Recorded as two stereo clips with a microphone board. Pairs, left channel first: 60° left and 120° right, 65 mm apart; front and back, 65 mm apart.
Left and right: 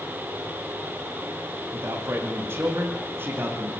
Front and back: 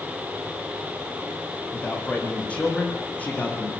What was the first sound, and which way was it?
A man speaking, 75° right.